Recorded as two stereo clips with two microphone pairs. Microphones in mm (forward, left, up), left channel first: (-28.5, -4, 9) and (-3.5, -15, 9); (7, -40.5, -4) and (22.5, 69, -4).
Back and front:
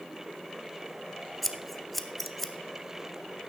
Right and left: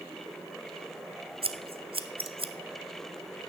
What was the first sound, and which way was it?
Scissors, 70° left.